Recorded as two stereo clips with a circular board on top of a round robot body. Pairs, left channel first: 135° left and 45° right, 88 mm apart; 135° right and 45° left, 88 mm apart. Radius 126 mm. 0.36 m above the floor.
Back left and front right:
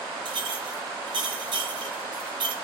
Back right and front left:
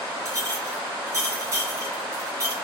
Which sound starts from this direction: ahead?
A clink, at 0.2 s.